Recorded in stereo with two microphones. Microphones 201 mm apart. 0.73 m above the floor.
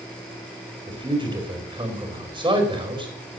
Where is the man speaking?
25° right (ahead or behind), 4 m.